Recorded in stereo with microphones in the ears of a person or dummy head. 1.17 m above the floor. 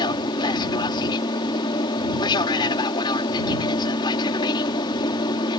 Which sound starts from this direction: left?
An aircraft, at 0.0 s.